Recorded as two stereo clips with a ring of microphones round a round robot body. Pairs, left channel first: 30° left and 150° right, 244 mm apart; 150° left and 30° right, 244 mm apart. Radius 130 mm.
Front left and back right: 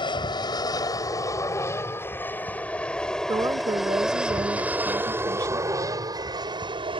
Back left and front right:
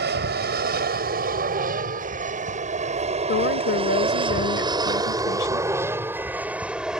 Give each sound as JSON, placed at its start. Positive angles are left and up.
{"t": 0.0, "sound": "an aircraft", "azimuth_deg": -30}
{"t": 3.3, "sound": "a woman speaking", "azimuth_deg": 140}